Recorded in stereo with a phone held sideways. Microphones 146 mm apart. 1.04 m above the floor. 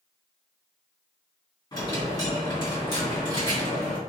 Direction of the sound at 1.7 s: 30° left (ahead or behind).